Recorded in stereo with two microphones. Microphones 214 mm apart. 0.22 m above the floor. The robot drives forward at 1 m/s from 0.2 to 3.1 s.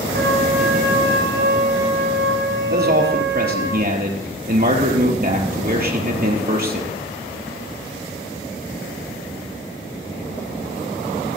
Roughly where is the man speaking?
Right.